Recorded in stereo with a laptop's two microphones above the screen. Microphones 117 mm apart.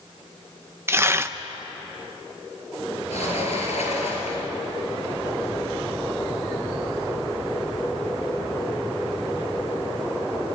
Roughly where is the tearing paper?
Right.